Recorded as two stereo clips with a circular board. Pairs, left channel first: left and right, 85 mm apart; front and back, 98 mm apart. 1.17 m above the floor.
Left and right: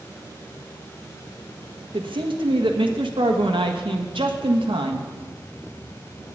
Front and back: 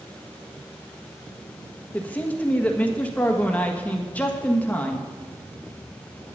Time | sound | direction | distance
1.9 | a man speaking | 75° right | 1.5 m